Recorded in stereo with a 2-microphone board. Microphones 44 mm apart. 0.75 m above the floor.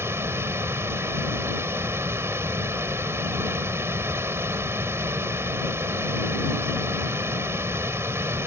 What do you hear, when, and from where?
0.0 s running water: 70° right (ahead or behind)